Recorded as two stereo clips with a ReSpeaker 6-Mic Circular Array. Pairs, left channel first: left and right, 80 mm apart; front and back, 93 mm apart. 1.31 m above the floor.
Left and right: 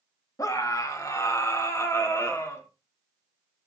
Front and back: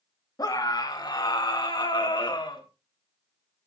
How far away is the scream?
About 2.5 m.